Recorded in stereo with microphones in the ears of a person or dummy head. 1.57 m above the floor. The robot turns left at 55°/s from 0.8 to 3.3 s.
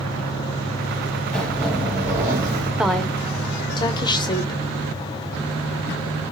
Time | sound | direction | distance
1.3 | a zipper | 5° left (ahead or behind) | 0.9 m
2.8 | a woman speaking | 5° right (ahead or behind) | 0.6 m